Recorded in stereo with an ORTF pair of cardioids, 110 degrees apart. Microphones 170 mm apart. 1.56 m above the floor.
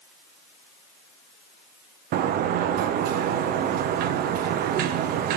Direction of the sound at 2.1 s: 65° right.